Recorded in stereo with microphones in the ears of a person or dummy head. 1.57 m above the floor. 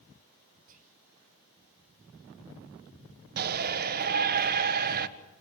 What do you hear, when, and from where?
0.7 s whispering: 40° right (ahead or behind), 0.6 m
3.4 s a shout: 50° right (ahead or behind), 1.5 m